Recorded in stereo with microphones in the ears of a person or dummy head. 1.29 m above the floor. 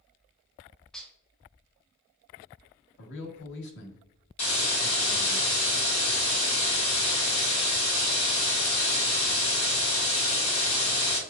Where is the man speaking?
60° left (ahead or behind), 1.1 m.